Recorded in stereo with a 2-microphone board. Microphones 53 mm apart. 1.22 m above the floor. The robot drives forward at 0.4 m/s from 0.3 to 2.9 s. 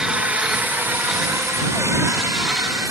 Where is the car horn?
No car horn in this recording.